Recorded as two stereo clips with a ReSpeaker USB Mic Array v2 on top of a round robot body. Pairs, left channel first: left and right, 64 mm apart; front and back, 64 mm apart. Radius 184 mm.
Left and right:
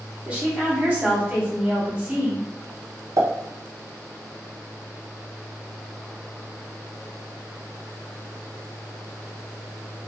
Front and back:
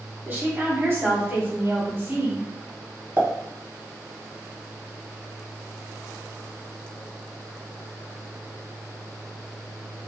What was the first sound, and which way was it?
A woman speaking, 150° right.